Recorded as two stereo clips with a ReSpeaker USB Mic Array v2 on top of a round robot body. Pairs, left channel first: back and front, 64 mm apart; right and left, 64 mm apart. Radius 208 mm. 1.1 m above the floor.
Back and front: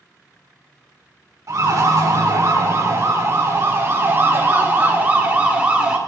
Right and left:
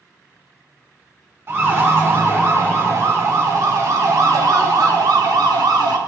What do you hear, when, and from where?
1.5 s a siren: 40° left, 4 m; by 6.0 s 75° left, 3.5 m